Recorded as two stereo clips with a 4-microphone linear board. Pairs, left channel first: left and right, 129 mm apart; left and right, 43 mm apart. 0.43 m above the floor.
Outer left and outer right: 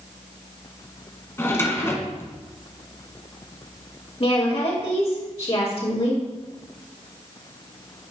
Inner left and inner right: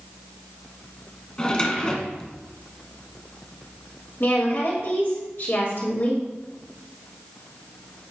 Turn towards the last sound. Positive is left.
turn(degrees=50)  # may be behind; listen again after turning